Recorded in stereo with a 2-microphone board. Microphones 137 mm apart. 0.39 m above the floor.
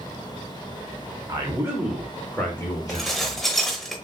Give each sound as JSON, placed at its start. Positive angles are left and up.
{"t": 1.3, "sound": "a man speaking", "side_deg": -30, "distance_m": 1.5}
{"t": 2.9, "sound": "dishes clattering", "side_deg": 0, "distance_m": 1.0}